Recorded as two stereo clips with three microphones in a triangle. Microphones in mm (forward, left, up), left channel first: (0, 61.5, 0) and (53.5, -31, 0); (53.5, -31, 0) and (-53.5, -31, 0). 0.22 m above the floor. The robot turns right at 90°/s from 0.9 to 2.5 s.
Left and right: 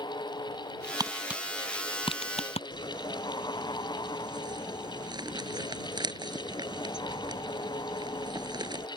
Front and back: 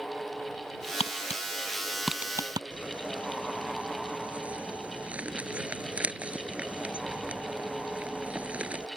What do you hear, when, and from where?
1.0 s tapping: 5° right; by 2.6 s 130° left
2.7 s crumpling: 105° right